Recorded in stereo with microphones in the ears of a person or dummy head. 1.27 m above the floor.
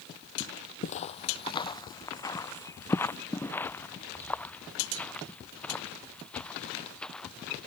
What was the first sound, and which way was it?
Footsteps, 35° left (ahead or behind).